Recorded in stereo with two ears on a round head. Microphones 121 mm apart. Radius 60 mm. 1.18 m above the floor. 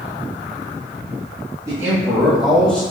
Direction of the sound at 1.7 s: 25° right (ahead or behind).